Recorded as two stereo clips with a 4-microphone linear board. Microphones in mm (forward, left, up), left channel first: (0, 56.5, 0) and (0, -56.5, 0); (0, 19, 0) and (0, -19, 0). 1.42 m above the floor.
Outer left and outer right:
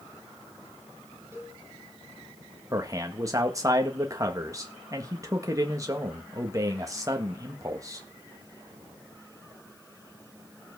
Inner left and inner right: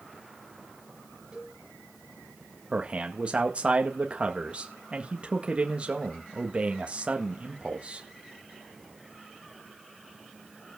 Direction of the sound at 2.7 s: 30° right (ahead or behind).